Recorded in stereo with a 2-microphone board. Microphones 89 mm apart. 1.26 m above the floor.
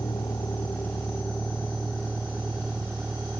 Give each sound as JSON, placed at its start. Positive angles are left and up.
{"t": 0.0, "sound": "a vehicle", "side_deg": 40}